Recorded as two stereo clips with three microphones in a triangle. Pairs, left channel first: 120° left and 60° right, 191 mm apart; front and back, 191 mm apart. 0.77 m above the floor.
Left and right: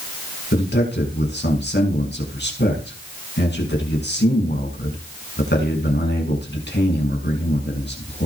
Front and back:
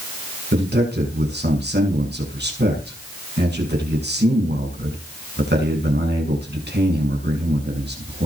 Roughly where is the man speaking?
Behind left.